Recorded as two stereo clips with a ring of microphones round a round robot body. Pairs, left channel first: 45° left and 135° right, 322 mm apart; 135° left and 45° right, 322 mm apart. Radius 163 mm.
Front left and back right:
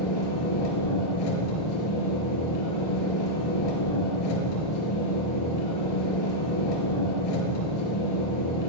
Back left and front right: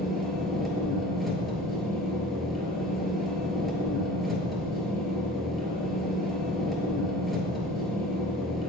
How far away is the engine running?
About 2.5 m.